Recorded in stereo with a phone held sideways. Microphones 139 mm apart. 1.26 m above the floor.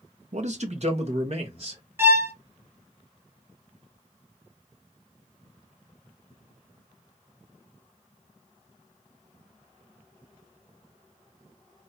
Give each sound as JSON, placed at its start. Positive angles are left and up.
{"t": 0.3, "sound": "a man speaking", "side_deg": -60, "distance_m": 0.8}
{"t": 2.0, "sound": "a violin", "side_deg": -20, "distance_m": 0.7}